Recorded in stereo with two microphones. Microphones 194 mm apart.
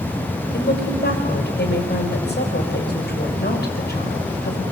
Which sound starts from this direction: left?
A woman speaking, at 0.5 s.